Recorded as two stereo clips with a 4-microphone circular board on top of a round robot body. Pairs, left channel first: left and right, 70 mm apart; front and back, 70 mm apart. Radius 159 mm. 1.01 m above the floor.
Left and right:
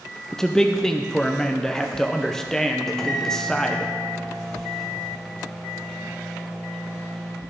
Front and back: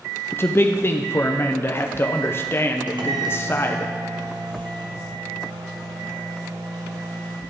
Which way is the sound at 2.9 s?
175° left.